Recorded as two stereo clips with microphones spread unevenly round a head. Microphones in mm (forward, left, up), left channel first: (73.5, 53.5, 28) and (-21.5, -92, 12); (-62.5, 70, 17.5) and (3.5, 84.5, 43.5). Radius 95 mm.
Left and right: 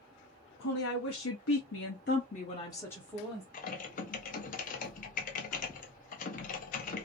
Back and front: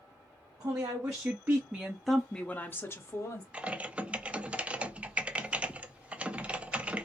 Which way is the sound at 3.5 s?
100° left.